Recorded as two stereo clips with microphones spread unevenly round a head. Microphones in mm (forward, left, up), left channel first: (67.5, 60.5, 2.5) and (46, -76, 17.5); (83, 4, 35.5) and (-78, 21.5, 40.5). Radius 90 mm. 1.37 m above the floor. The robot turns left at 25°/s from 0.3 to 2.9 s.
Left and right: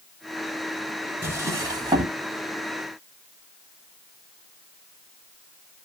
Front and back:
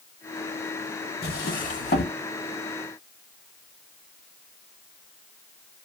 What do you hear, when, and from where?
1.2 s a drawer: 30° right, 1.1 m; by 2.2 s 55° right, 1.1 m